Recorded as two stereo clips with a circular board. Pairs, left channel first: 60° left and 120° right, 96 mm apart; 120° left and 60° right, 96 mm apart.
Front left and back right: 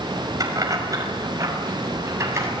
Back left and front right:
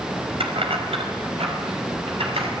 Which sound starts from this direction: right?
Keys jangling, at 0.4 s.